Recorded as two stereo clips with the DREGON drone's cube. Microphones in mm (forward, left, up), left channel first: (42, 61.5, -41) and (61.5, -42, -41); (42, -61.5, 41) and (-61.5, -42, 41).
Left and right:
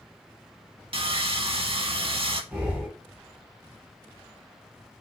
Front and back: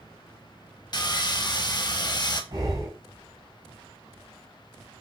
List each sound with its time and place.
0.9 s sawing: 60° right, 0.5 m
2.5 s breathing: 150° right, 2.5 m